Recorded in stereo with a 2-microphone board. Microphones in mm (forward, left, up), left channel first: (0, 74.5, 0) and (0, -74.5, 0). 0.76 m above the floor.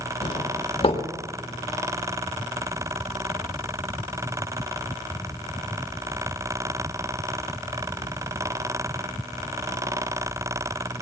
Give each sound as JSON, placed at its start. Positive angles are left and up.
{"t": 0.2, "sound": "a doorbell", "side_deg": 40, "distance_m": 2.0}